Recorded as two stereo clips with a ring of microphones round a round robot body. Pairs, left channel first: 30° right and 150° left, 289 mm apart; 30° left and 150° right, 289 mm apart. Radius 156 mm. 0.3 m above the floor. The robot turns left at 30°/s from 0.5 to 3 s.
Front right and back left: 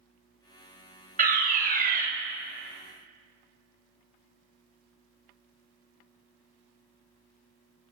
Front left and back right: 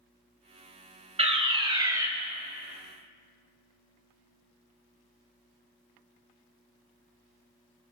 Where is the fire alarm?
165° left, 2.5 m; by 2.1 s 140° left, 2.5 m.